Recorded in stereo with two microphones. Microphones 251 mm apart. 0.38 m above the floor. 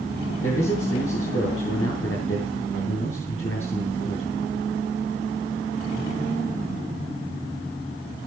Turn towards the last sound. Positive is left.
turn(degrees=55)  # may be behind; listen again after turning